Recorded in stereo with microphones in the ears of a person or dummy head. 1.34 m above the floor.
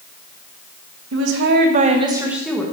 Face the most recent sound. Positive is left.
turn(degrees=5)  # may be behind; listen again after turning